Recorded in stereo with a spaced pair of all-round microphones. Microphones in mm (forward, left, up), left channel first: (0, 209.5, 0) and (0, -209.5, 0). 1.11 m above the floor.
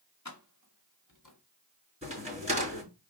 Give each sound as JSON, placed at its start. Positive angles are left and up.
{"t": 0.2, "sound": "keys jangling", "side_deg": 40, "distance_m": 1.5}
{"t": 2.0, "sound": "a crack", "side_deg": -15, "distance_m": 5.0}